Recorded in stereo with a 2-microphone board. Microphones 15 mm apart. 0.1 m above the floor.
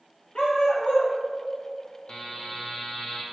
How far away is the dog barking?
About 2.5 m.